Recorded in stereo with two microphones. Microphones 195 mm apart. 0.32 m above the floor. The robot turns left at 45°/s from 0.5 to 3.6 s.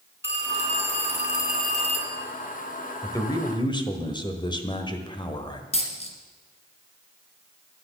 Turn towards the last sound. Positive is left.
turn(degrees=30)  # may be behind; listen again after turning